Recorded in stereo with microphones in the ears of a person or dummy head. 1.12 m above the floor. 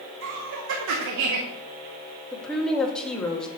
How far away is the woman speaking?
About 1.7 m.